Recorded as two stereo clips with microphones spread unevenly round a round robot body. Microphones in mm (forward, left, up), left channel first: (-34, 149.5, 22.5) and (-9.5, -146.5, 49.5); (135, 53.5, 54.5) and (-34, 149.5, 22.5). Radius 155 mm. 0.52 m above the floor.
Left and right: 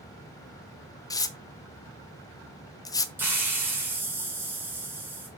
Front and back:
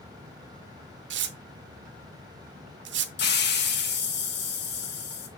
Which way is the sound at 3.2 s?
Straight ahead.